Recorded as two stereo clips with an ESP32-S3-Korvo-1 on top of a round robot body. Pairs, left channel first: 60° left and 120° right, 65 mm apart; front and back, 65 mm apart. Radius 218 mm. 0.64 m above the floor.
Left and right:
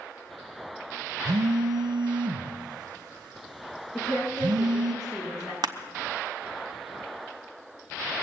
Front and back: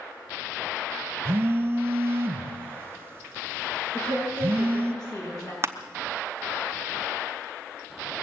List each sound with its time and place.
1.2 s a phone buzzing: 120° right, 0.6 m
3.9 s a woman speaking: 20° right, 9 m
5.6 s crushing: 130° right, 0.9 m